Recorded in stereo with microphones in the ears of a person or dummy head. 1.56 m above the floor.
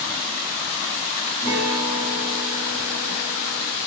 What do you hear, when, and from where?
1.4 s a guitar: 15° left (ahead or behind), 1.0 m